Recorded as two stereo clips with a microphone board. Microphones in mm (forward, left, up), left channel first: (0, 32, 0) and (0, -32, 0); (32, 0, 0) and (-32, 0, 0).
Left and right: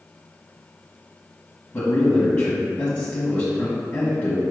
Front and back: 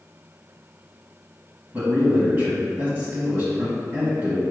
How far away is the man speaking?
About 1.2 m.